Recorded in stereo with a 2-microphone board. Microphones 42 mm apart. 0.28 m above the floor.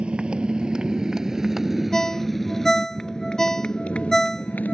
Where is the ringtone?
10° left (ahead or behind).